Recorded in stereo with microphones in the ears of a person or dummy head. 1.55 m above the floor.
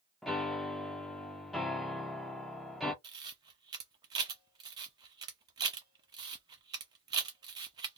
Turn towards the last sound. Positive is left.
turn(degrees=-30)  # may be behind; listen again after turning